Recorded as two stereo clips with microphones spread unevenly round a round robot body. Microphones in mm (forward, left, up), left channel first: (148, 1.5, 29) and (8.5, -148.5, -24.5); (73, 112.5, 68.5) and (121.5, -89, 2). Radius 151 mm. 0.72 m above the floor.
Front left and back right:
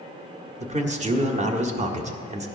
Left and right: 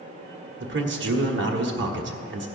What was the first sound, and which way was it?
A man speaking, 85° right.